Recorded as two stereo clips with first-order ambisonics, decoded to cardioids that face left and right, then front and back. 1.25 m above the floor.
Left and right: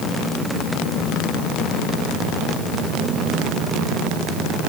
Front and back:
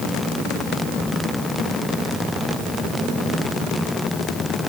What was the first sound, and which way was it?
Only background noise.